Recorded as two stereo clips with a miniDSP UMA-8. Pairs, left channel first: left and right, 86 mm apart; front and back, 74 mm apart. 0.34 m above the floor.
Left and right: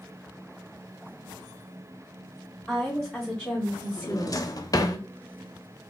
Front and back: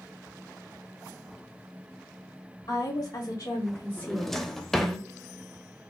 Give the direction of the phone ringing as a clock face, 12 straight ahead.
I don't hear a phone ringing.